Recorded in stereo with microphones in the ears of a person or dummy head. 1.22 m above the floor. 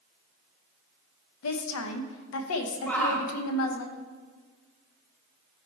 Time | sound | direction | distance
1.4 | a woman speaking | 85° left | 0.8 m
2.9 | a shout | 10° left (ahead or behind) | 0.9 m